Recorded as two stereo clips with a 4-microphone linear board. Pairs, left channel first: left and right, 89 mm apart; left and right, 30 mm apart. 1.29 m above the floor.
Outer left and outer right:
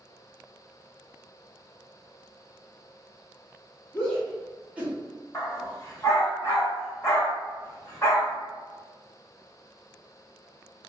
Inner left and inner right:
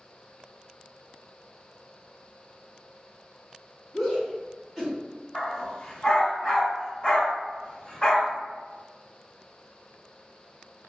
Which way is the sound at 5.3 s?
25° left (ahead or behind).